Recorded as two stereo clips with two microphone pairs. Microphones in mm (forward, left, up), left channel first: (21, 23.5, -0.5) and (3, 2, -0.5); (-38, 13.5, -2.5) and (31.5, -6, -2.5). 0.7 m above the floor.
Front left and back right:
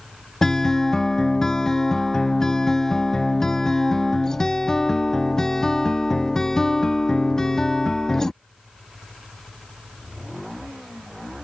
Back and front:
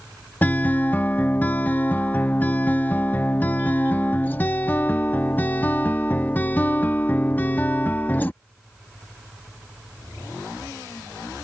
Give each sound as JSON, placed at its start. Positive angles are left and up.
{"t": 0.4, "sound": "a guitar", "azimuth_deg": 110}